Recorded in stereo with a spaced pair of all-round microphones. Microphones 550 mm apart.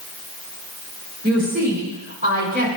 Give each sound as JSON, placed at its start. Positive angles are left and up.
{"t": 1.2, "sound": "a woman speaking", "side_deg": -15, "distance_m": 3.0}